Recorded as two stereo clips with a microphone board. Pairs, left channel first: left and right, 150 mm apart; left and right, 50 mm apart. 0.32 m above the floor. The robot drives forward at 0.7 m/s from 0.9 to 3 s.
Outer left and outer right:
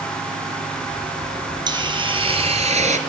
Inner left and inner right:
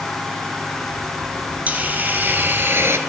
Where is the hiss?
30° right (ahead or behind), 1.8 m; by 3.0 s 55° right (ahead or behind), 1.1 m.